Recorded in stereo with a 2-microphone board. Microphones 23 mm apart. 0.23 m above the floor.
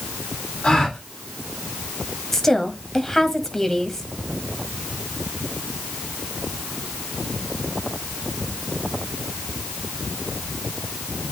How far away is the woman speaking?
About 1.2 m.